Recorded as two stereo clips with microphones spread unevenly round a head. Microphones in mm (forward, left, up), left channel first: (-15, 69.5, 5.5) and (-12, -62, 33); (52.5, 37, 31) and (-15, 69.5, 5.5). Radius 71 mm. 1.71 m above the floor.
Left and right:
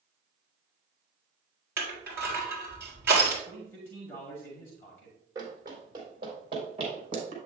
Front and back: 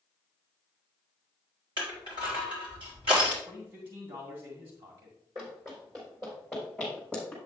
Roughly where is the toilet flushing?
I don't hear a toilet flushing.